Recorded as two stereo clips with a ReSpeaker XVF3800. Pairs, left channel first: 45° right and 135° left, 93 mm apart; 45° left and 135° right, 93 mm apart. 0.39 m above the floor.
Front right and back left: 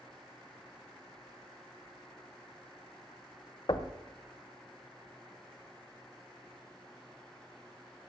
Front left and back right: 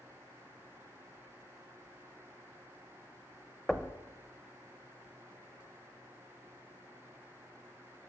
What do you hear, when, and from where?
3.7 s knocking: 40° right, 0.8 m